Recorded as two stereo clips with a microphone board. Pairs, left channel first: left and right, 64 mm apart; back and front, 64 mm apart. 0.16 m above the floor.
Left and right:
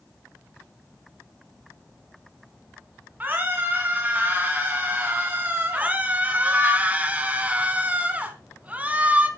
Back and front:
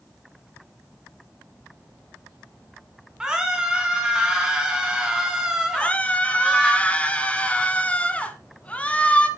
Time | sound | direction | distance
3.2 | a scream | 65° right | 1.8 m
5.7 | a scream | 130° right | 1.5 m